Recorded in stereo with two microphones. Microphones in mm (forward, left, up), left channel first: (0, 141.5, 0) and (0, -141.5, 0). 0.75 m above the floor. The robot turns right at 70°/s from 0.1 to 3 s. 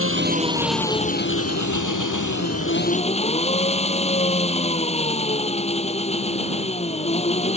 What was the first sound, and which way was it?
An engine running, 45° right.